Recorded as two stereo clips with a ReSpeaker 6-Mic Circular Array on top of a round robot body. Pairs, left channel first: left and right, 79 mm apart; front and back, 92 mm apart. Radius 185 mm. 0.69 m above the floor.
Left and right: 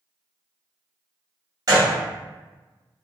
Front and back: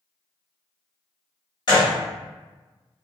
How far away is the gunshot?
About 1.0 m.